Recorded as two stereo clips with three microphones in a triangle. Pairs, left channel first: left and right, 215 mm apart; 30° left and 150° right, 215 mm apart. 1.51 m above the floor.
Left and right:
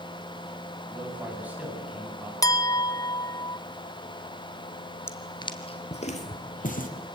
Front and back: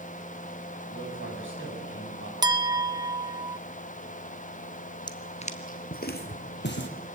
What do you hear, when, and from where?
0.9 s a man speaking: 175° right, 8.5 m
2.4 s a clink: 155° left, 0.7 m
5.1 s footsteps: 35° left, 1.5 m; by 6.9 s 45° left, 3 m